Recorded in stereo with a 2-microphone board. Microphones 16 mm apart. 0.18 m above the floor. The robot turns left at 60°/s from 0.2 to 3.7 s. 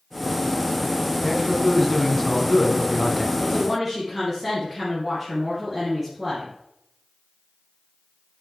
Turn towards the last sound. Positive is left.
turn(degrees=-20)  # may be behind; listen again after turning